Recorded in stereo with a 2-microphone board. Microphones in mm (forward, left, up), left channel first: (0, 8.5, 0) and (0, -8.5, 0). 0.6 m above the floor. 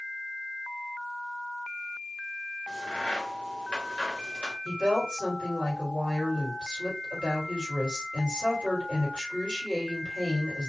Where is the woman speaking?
50° left (ahead or behind), 1.8 m.